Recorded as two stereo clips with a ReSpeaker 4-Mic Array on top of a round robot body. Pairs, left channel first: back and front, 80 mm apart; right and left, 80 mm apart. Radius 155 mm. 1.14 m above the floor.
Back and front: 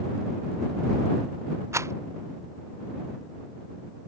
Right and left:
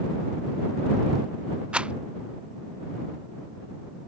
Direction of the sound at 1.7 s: 20° left.